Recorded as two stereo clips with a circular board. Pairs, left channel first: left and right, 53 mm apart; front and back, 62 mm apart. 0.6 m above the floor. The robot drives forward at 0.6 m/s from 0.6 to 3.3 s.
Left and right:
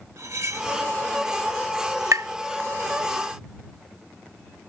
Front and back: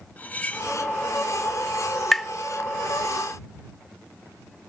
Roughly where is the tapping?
Right.